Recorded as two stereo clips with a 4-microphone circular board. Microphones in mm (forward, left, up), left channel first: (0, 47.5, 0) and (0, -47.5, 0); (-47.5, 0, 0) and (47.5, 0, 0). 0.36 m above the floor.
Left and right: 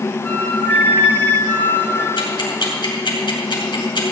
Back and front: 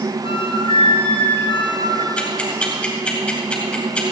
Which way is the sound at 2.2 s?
105° left.